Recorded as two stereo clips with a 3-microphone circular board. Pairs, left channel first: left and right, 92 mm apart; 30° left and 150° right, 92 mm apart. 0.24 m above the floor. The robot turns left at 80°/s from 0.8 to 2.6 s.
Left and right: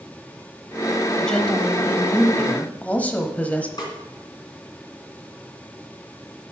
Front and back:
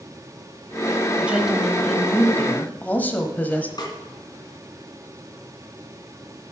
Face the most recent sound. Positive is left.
turn(degrees=60)